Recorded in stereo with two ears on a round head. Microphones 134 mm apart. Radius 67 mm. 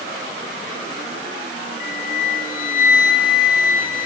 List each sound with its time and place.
1.8 s a flute: 60° left (ahead or behind), 1.9 m